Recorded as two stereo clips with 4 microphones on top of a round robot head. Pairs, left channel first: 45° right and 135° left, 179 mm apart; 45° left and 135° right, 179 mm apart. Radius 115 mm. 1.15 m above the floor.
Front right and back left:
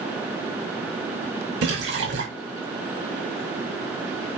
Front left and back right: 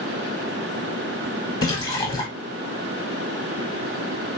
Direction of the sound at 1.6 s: 120° left.